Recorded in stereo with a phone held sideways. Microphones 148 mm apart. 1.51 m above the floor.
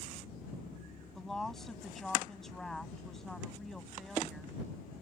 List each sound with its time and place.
1.1 s a woman speaking: 5° left (ahead or behind)